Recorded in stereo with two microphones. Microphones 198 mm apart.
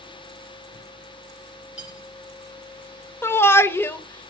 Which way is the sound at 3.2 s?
10° left (ahead or behind).